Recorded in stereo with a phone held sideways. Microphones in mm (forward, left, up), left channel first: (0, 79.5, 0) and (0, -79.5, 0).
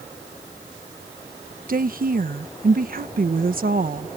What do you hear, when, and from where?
1.7 s a woman speaking: 65° right (ahead or behind)